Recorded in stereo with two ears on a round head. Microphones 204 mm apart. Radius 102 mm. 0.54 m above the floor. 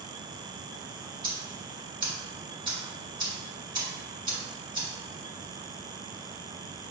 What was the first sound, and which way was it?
Ticking, 20° right (ahead or behind).